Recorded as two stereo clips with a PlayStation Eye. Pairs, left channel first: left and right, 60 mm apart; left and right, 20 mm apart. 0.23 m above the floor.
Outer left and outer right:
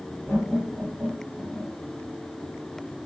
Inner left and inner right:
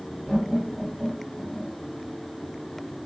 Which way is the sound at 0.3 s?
10° right (ahead or behind).